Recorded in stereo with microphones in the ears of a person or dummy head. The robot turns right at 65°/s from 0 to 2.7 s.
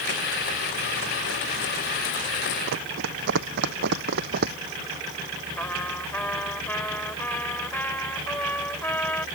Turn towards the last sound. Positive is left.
turn(degrees=10)  # may be behind; listen again after turning